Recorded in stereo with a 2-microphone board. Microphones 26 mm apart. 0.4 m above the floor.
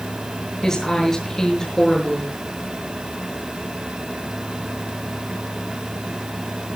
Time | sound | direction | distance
0.6 | a woman speaking | 25° left (ahead or behind) | 7 m